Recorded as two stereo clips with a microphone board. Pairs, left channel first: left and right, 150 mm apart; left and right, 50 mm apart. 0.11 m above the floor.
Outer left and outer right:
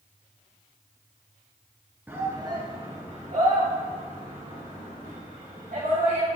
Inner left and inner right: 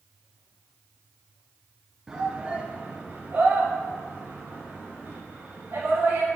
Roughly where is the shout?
Centre.